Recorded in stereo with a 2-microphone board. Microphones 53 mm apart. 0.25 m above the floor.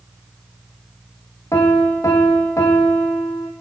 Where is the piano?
80° left, 2.5 m.